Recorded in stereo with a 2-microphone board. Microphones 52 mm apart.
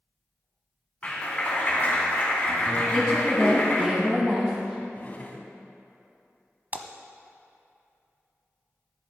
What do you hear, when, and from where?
1.0 s a clap: 30° left (ahead or behind), 2.5 m
2.9 s a woman speaking: 10° right (ahead or behind), 1.6 m
4.9 s a drawer: 30° left (ahead or behind), 1.1 m
6.7 s a splash: 35° right (ahead or behind), 0.7 m